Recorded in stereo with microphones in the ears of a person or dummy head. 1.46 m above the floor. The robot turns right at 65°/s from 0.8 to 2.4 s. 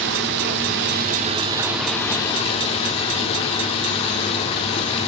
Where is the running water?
65° right, 1.0 m; by 5.1 s 40° left, 1.0 m.